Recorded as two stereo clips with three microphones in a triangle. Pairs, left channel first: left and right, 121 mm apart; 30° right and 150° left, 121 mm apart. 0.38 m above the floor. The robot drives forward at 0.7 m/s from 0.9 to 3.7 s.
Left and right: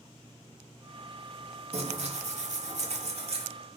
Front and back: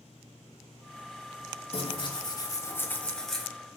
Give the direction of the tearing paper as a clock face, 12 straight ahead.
2 o'clock.